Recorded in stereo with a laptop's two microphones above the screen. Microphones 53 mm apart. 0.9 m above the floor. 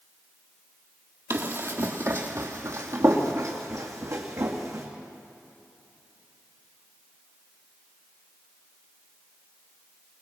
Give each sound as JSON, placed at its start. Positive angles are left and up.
{"t": 1.3, "sound": "running footsteps", "side_deg": -55, "distance_m": 1.9}